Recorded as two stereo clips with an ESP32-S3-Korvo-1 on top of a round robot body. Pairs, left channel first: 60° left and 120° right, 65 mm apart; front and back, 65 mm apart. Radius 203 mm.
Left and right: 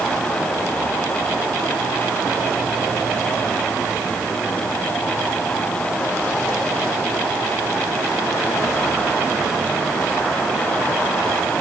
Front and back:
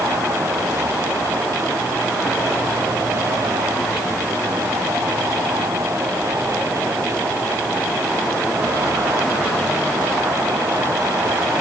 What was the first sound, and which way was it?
Only background noise.